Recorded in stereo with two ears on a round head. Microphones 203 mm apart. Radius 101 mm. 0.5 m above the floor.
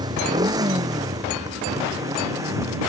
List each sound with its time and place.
0.0 s a motorcycle: 20° right (ahead or behind); by 2.9 s 15° right (ahead or behind)